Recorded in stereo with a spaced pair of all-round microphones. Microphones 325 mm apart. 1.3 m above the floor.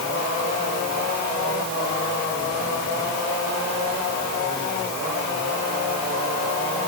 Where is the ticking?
I don't hear ticking.